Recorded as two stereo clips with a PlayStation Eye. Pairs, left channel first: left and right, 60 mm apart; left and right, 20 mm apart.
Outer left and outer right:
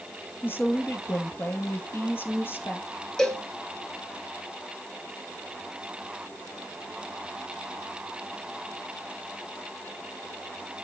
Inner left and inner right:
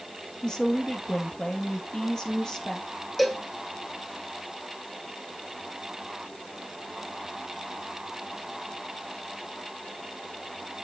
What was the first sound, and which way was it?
A woman speaking, 35° left (ahead or behind).